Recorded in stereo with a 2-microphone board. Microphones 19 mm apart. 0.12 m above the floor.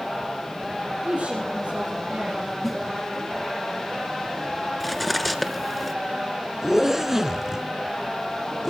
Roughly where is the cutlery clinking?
Centre.